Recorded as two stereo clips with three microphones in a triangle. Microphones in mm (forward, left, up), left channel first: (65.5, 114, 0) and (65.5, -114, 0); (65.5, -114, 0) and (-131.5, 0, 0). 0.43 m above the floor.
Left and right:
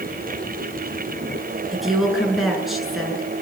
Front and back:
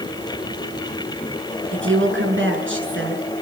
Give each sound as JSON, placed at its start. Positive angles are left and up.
{"t": 1.7, "sound": "a woman speaking", "azimuth_deg": 180, "distance_m": 6.5}